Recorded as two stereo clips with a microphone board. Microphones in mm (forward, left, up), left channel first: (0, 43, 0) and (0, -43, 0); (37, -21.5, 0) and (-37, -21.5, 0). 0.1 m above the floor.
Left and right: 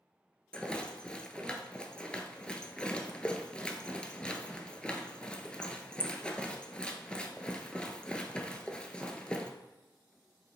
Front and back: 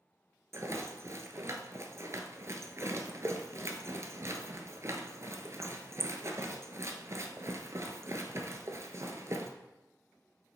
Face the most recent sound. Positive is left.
turn(degrees=165)